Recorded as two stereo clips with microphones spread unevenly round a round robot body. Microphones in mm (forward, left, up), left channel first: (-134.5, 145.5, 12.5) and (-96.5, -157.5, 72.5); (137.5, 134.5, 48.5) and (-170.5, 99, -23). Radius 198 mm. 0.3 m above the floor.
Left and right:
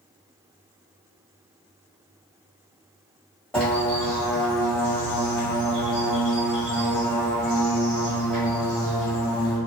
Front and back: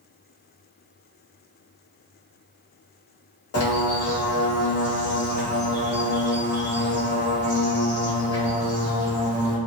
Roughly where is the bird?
Ahead left.